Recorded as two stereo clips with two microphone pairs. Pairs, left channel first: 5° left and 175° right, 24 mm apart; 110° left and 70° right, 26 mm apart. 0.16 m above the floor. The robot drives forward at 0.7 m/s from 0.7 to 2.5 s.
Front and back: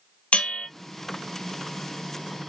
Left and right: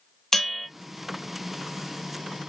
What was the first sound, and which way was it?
A bell, 30° left.